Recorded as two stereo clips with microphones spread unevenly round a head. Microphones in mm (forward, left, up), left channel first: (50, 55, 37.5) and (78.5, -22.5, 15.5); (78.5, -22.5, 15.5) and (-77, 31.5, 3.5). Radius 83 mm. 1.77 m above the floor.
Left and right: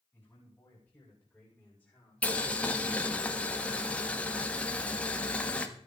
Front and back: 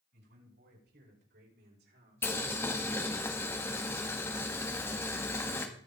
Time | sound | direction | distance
0.1 | a man speaking | 175° right | 8.5 m
2.2 | boiling | 50° left | 1.6 m